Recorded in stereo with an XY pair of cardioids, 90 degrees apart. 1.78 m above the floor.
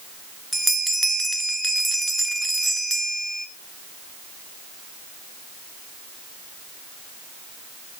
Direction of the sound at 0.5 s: 10° right.